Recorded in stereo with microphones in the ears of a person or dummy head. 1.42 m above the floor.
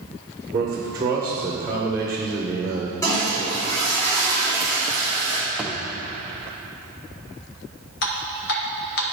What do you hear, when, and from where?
0.5 s a man speaking: 20° right (ahead or behind), 1.2 m
3.0 s a toilet flushing: 20° left (ahead or behind), 3 m
5.6 s a thud: centre (ahead or behind), 0.9 m
8.0 s dripping: 60° left (ahead or behind), 1.2 m